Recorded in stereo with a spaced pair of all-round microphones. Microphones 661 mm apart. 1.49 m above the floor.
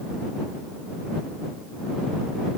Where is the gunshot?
I don't hear a gunshot.